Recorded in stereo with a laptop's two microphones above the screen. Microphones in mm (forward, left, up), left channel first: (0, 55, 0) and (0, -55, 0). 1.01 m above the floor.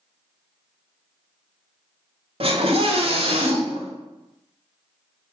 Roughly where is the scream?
Right.